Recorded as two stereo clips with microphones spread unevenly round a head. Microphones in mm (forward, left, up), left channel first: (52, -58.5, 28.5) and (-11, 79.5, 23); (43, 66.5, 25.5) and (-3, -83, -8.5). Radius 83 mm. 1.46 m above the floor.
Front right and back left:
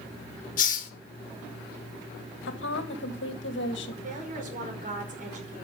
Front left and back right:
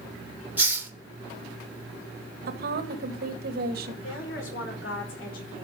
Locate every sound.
0.6 s a hiss: 25° right, 1.8 m
2.5 s a woman speaking: 80° right, 1.9 m
4.0 s a woman speaking: 75° left, 5.5 m